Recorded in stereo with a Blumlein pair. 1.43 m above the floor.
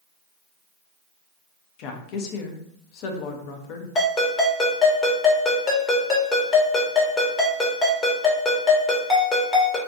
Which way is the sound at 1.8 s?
40° left.